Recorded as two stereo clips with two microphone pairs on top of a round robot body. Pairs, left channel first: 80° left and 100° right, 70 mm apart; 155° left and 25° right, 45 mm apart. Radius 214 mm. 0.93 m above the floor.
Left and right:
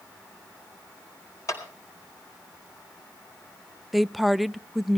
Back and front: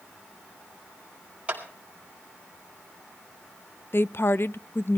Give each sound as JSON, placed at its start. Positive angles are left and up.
{"t": 1.5, "sound": "a clap", "azimuth_deg": 40, "distance_m": 4.5}
{"t": 3.9, "sound": "a woman speaking", "azimuth_deg": 155, "distance_m": 0.6}